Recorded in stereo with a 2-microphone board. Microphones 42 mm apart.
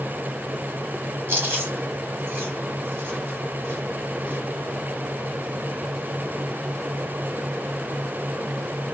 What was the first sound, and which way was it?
Chewing, 50° right (ahead or behind).